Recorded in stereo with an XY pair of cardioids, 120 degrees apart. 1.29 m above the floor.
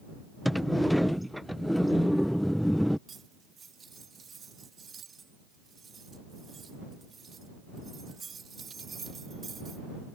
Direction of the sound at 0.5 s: 5° left.